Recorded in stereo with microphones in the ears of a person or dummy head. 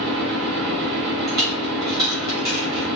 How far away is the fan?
About 1.3 m.